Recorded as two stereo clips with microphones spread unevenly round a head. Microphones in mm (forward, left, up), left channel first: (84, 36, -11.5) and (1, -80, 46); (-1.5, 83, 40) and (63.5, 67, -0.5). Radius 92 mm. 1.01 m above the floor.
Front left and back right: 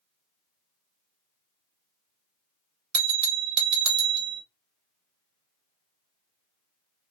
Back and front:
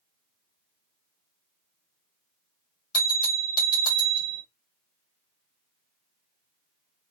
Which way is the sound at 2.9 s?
130° right.